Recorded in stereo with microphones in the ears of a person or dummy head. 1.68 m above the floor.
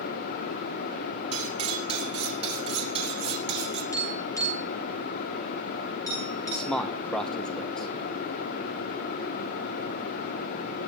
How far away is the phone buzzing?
No phone buzzing in this recording.